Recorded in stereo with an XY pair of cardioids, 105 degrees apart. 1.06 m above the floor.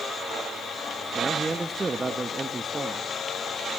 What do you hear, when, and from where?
1.1 s a man speaking: 25° right, 1.2 m